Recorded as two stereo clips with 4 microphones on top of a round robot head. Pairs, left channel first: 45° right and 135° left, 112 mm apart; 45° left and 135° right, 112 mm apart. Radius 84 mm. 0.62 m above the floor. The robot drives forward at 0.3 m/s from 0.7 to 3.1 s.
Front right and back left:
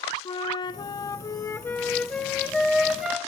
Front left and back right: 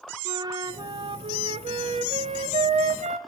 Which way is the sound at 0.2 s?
85° right.